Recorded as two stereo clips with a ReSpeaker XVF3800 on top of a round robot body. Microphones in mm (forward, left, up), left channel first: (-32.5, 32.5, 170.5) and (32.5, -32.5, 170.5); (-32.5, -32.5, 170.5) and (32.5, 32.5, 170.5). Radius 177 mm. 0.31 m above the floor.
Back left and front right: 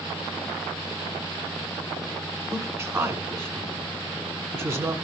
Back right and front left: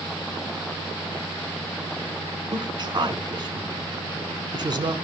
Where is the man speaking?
10° left, 2 m.